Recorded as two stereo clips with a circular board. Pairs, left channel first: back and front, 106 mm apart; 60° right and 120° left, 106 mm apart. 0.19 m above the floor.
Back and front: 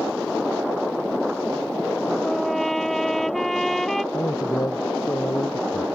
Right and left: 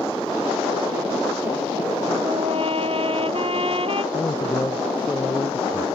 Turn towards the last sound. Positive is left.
turn(degrees=-125)